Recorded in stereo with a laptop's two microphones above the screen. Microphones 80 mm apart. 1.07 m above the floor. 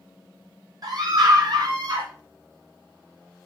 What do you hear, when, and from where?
0.8 s a scream: 50° right (ahead or behind), 3 m; by 2.1 s 60° right (ahead or behind), 2.5 m